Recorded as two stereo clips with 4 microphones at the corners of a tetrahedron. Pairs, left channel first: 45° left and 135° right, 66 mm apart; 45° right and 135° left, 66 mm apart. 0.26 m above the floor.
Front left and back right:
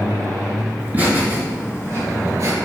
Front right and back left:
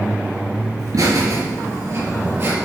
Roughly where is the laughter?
Behind.